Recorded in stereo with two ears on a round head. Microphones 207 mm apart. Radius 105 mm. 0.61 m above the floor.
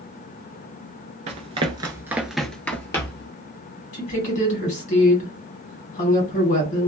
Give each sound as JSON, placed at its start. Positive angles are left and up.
{"t": 1.3, "sound": "running footsteps", "side_deg": -30, "distance_m": 0.6}
{"t": 3.9, "sound": "a woman speaking", "side_deg": 35, "distance_m": 1.6}